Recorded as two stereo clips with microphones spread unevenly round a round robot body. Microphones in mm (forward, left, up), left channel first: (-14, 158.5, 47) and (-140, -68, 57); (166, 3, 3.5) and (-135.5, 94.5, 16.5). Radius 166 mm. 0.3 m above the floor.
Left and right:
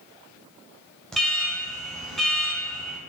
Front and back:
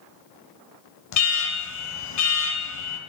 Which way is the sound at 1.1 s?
25° right.